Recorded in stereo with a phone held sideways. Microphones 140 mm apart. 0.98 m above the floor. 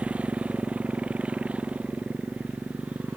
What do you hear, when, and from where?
0.0 s a motorcycle: 10° right (ahead or behind)